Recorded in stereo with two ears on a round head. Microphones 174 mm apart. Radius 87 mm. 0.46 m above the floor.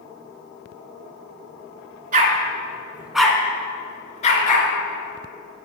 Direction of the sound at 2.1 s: 45° right (ahead or behind).